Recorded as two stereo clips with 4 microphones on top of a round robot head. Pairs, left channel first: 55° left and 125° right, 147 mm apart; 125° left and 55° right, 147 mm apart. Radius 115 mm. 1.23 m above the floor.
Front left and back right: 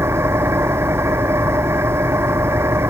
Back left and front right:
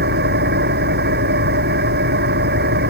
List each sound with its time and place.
0.0 s an engine running: 50° right